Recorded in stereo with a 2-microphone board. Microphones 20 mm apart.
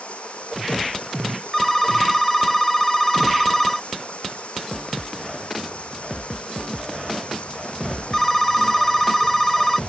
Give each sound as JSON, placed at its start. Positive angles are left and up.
{"t": 0.0, "sound": "running water", "side_deg": 85}
{"t": 1.5, "sound": "a phone ringing", "side_deg": 10}